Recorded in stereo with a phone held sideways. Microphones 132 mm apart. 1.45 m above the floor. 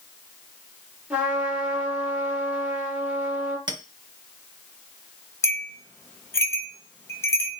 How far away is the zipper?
No zipper in this recording.